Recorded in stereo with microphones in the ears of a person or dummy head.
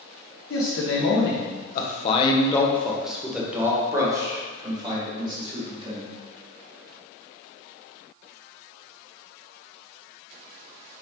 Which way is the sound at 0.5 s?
70° left (ahead or behind).